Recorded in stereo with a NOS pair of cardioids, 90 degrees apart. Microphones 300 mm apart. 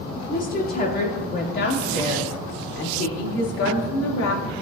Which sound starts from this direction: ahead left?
A woman speaking, at 0.3 s.